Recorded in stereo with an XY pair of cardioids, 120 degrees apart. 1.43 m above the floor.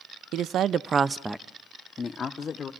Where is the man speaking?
70° right, 0.7 m; by 2.7 s 45° left, 1.1 m.